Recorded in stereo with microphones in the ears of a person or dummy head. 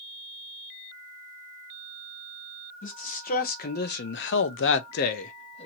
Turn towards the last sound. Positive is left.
turn(degrees=30)  # may be behind; listen again after turning